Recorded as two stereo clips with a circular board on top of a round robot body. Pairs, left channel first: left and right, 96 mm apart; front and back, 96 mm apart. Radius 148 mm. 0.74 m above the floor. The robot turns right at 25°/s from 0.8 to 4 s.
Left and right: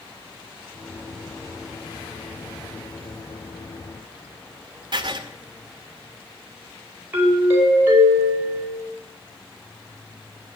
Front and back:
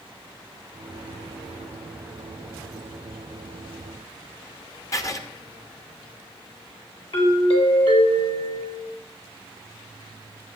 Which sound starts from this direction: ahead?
A doorbell, at 7.1 s.